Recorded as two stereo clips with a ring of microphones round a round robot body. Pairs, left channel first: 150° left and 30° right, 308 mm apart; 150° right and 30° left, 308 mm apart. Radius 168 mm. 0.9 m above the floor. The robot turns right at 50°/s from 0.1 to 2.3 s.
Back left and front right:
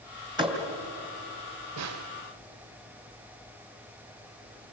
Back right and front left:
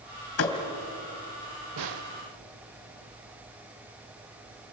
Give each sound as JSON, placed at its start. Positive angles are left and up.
{"t": 0.4, "sound": "a thud", "azimuth_deg": -105, "distance_m": 2.5}
{"t": 1.8, "sound": "a snare drum", "azimuth_deg": 5, "distance_m": 1.3}